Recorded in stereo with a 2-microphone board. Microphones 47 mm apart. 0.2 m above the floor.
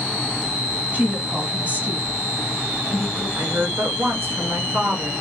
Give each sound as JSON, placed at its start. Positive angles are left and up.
{"t": 0.9, "sound": "a woman speaking", "side_deg": -35, "distance_m": 1.9}
{"t": 3.4, "sound": "a woman speaking", "side_deg": -60, "distance_m": 2.0}